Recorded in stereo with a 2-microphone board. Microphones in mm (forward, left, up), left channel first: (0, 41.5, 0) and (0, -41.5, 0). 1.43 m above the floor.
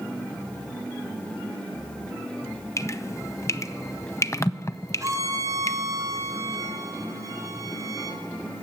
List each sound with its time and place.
2.8 s dripping: 35° left (ahead or behind), 0.6 m
5.0 s a violin: 40° right (ahead or behind), 2.5 m